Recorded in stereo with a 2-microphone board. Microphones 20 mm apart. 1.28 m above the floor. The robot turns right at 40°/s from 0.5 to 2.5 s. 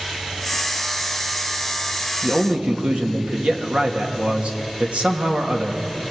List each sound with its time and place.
2.2 s a man speaking: 60° right (ahead or behind), 2.5 m; by 5.8 s 70° right (ahead or behind), 2.5 m